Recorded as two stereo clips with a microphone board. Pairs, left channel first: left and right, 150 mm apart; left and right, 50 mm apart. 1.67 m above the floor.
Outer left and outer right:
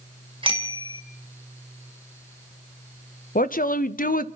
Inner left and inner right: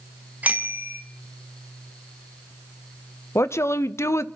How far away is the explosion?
No explosion in this recording.